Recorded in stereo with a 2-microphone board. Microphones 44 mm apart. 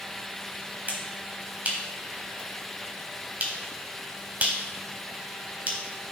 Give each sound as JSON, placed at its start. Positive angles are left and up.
{"t": 0.9, "sound": "a finger snap", "side_deg": -40, "distance_m": 1.1}